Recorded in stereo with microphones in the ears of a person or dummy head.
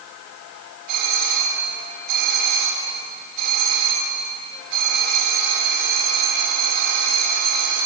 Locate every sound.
0.9 s a doorbell: 45° right (ahead or behind), 7.5 m